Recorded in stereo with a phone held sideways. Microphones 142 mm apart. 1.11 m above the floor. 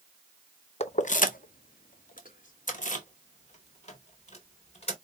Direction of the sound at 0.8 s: 50° left (ahead or behind).